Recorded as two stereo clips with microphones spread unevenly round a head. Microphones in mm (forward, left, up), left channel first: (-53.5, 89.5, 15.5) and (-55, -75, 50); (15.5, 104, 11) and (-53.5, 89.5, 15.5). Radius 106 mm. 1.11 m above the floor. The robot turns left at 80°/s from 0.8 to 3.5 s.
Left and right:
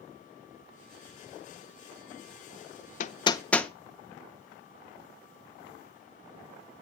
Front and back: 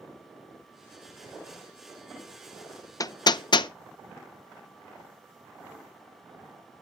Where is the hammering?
50° left, 0.5 m; by 3.7 s 10° left, 0.5 m.